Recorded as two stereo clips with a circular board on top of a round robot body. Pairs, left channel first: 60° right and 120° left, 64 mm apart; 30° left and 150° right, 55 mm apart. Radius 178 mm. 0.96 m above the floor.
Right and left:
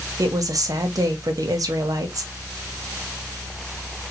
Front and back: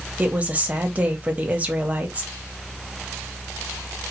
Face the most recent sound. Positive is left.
turn(degrees=145)